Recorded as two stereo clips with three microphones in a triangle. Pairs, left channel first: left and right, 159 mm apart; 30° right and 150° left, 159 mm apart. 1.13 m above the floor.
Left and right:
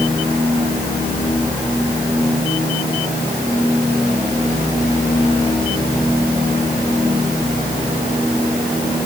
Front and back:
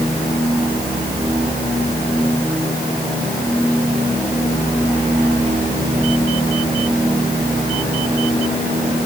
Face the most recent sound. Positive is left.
No sound to turn to.